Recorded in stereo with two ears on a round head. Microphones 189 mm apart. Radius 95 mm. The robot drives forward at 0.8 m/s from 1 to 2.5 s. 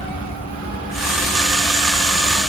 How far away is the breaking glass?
No breaking glass in this recording.